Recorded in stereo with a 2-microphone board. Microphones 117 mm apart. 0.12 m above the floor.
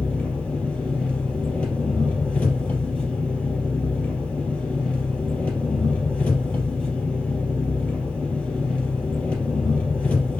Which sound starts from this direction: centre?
An engine running, at 0.0 s.